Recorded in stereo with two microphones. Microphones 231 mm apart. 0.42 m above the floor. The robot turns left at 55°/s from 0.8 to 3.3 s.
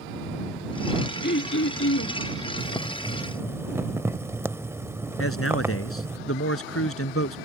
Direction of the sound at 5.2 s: 75° left (ahead or behind).